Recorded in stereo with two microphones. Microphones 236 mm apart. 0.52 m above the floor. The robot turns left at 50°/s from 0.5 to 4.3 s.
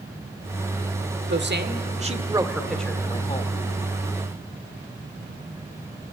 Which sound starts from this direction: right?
A man speaking, at 1.3 s.